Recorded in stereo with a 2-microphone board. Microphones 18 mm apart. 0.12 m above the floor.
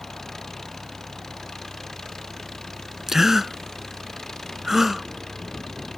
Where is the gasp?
25° right (ahead or behind).